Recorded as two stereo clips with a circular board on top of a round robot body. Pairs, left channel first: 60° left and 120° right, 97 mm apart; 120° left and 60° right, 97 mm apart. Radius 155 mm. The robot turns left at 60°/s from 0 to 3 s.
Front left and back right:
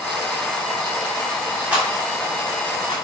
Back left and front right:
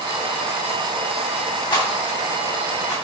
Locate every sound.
1.7 s a rattle: 165° left, 3 m; by 2.9 s 90° left, 3 m